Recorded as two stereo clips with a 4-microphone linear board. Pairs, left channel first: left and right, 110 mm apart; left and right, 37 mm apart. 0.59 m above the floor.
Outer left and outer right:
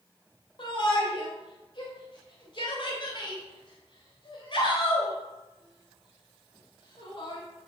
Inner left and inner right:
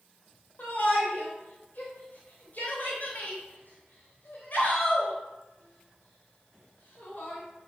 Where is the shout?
50° left (ahead or behind), 3 m.